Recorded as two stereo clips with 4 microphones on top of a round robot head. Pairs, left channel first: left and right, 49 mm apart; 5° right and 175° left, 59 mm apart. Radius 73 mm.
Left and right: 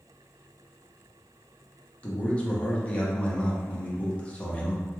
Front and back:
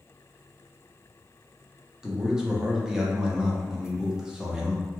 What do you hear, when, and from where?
2.0 s a man speaking: 110° left, 0.8 m